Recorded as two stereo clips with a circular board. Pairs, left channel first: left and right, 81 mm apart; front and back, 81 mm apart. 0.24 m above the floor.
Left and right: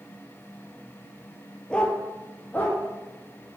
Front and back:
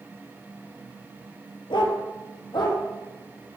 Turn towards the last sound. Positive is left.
turn(degrees=25)